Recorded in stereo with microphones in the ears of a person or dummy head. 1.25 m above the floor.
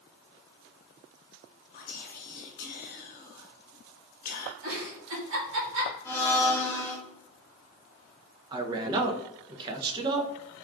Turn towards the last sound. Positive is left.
turn(degrees=-25)  # may be behind; listen again after turning